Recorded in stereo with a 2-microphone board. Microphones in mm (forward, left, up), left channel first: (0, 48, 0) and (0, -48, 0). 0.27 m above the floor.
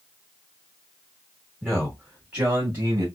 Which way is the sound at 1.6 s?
10° left (ahead or behind).